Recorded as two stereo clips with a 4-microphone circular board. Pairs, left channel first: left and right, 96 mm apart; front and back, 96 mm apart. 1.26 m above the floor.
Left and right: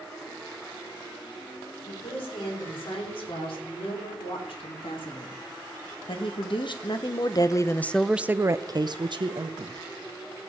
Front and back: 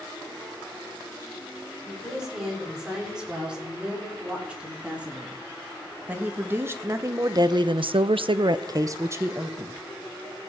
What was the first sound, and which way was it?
A woman speaking, 95° left.